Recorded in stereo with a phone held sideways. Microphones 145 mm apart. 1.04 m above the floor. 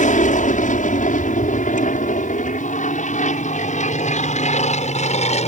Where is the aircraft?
60° left (ahead or behind); by 5.5 s 50° left (ahead or behind).